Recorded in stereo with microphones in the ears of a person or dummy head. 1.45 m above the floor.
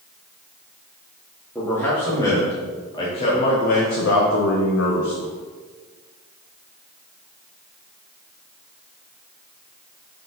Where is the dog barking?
I don't hear a dog barking.